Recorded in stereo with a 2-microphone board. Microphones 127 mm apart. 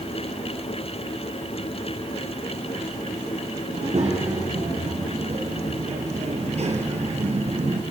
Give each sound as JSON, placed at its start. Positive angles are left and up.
{"t": 3.7, "sound": "a child speaking", "side_deg": -60, "distance_m": 7.0}